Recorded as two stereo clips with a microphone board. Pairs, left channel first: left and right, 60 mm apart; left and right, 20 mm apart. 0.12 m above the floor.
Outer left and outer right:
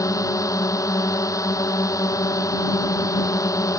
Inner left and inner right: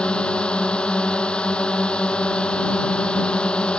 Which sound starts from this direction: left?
A drone, at 0.0 s.